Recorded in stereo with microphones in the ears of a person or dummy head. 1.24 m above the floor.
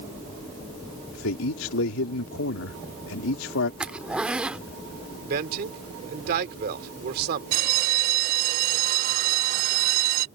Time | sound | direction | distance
1.1 | a man speaking | 85° left | ?
3.8 | a zipper | 5° right (ahead or behind) | ?
5.2 | a man speaking | 60° right (ahead or behind) | ?
7.5 | a bell | 55° right (ahead or behind) | ?